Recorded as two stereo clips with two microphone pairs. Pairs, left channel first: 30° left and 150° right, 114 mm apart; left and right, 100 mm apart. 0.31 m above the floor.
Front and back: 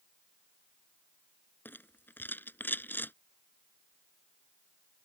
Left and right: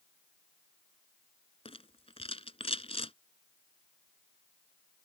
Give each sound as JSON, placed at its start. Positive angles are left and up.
{"t": 1.6, "sound": "a rattle", "azimuth_deg": 100}